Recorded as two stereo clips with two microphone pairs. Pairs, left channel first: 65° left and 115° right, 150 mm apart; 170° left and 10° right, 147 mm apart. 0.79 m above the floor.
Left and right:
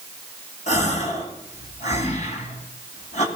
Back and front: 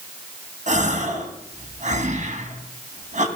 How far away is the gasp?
About 2 m.